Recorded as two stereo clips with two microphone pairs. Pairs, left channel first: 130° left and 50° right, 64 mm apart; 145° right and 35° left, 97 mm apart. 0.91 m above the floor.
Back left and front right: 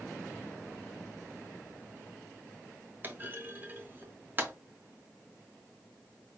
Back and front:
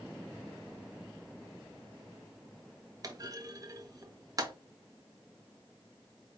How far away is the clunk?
About 0.7 m.